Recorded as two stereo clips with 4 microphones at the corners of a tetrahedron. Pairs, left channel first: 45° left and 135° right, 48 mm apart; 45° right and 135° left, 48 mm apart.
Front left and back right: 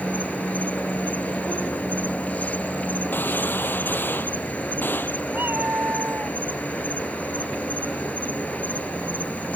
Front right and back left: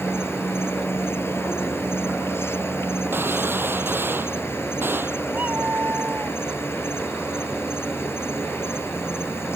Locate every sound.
0.0 s an insect: 15° right
3.1 s a gunshot: 95° left
5.3 s a cat meowing: 175° right